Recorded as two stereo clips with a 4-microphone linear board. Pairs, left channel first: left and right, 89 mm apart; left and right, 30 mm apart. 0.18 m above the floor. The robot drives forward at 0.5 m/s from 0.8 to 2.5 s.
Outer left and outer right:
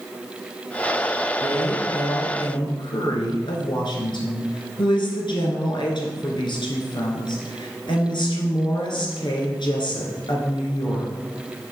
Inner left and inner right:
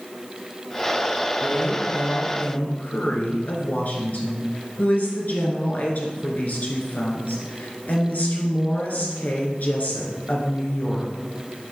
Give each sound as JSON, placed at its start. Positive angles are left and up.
{"t": 1.4, "sound": "a woman speaking", "side_deg": 55, "distance_m": 2.5}